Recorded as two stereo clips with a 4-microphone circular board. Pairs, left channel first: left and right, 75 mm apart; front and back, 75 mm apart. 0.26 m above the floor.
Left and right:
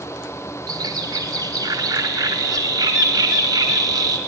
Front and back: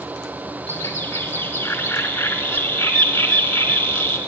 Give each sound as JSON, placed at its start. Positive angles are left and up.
{"t": 0.7, "sound": "a bird", "azimuth_deg": -60, "distance_m": 0.7}